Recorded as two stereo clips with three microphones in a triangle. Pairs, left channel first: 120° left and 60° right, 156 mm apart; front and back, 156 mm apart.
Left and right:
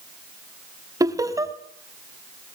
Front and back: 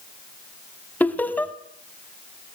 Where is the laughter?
60° right, 1.2 m.